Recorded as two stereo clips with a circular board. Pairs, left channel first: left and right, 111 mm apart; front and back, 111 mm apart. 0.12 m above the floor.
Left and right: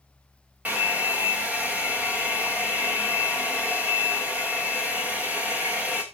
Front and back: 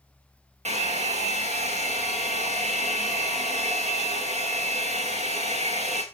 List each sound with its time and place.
0.7 s a hair dryer: 170° right, 3 m